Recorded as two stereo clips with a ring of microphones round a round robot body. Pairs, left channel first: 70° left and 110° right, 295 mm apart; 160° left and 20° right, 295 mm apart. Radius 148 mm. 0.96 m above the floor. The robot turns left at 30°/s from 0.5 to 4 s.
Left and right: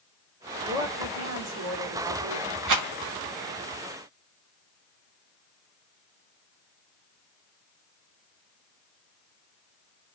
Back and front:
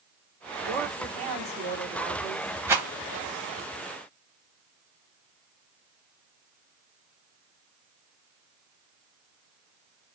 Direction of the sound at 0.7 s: 45° right.